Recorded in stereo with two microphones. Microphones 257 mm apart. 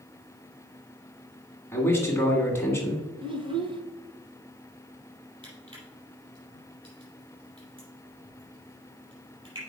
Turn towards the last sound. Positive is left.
turn(degrees=-20)  # may be behind; listen again after turning